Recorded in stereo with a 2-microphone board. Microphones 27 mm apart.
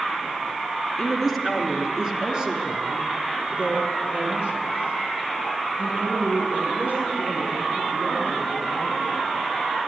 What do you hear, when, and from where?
1.0 s a woman speaking: centre (ahead or behind), 2 m; by 9.3 s 70° right (ahead or behind), 8 m